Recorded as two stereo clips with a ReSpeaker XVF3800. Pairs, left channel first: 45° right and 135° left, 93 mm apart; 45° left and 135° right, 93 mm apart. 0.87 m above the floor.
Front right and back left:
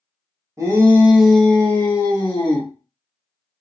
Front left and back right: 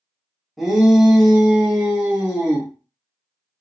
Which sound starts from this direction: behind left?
A shout, at 0.6 s.